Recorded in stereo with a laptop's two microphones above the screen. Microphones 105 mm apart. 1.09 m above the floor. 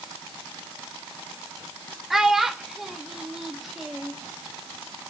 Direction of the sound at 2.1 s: Centre (ahead or behind).